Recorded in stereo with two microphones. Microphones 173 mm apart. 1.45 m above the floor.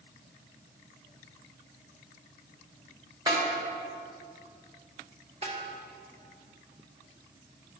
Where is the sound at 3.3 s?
25° right (ahead or behind), 2 m.